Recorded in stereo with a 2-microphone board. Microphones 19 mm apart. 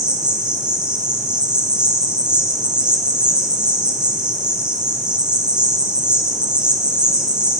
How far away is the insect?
About 0.9 m.